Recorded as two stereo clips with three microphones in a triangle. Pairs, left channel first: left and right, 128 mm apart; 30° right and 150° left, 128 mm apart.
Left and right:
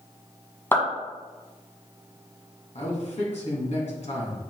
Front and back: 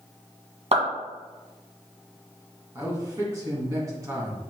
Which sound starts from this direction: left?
A man speaking, at 2.8 s.